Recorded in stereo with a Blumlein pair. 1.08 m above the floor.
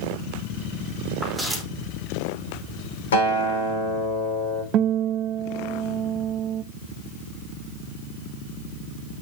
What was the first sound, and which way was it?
Footsteps, 10° right.